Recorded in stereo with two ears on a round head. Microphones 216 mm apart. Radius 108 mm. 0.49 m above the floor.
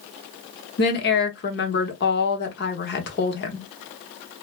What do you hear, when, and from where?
0.8 s a woman speaking: 45° left (ahead or behind), 0.9 m